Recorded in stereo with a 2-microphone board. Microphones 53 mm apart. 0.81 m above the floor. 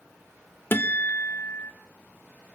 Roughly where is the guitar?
Left.